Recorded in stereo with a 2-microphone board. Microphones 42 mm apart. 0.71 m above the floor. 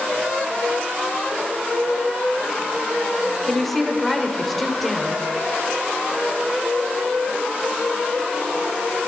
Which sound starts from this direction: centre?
A woman speaking, at 3.4 s.